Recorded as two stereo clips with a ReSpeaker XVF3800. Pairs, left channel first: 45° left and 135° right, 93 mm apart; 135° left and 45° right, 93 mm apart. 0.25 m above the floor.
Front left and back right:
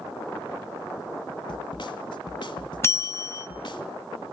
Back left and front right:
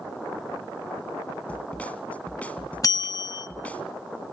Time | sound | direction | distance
1.5 | a snare drum | 60° left | 1.3 m
2.8 | a bell | 100° left | 0.6 m